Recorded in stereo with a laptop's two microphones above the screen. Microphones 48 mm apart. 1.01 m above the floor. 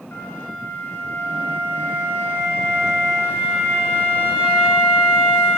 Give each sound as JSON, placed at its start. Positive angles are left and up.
{"t": 0.1, "sound": "a flute", "side_deg": 65, "distance_m": 1.4}